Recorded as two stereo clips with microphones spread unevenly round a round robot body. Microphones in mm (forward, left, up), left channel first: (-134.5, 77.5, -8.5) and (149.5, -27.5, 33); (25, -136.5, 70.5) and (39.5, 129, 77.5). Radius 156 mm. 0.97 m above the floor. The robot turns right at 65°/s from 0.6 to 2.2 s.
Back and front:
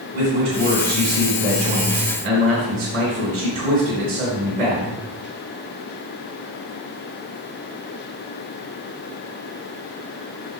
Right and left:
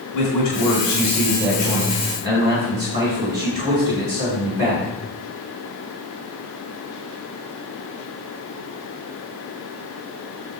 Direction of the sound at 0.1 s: 70° right.